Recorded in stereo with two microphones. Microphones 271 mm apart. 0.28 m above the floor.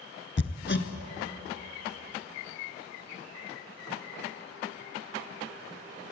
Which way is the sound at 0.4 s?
45° left (ahead or behind).